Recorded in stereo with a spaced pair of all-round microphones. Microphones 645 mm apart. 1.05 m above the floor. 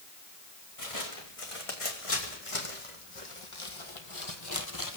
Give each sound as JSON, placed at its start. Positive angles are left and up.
{"t": 0.8, "sound": "footsteps", "side_deg": 60, "distance_m": 4.0}